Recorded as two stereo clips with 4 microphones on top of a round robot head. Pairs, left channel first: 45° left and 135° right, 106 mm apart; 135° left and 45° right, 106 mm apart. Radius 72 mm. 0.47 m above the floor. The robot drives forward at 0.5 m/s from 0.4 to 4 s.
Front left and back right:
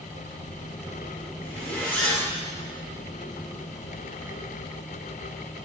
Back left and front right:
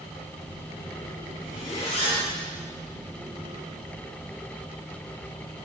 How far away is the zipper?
About 2.5 m.